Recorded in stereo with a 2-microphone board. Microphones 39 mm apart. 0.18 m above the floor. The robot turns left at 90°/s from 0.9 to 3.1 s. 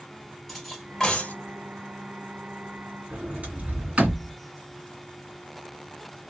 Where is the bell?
I don't hear a bell.